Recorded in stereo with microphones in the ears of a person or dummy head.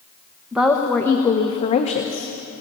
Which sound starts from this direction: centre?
A woman speaking, at 0.5 s.